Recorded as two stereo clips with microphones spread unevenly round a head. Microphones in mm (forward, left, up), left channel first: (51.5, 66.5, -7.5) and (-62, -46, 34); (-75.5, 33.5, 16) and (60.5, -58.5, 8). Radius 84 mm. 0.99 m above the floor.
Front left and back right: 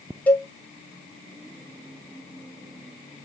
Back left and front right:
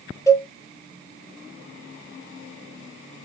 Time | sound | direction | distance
0.3 | a cowbell | 85° left | 0.7 m